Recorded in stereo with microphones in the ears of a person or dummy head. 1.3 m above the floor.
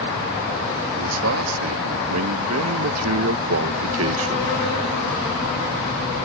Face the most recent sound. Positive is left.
turn(degrees=-65)  # may be behind; listen again after turning